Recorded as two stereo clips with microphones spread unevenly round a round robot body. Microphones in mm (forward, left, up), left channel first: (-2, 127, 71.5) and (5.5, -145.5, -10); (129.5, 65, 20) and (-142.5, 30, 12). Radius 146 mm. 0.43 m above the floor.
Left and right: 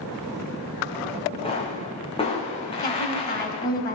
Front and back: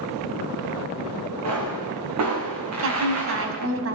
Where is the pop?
160° left, 6 m.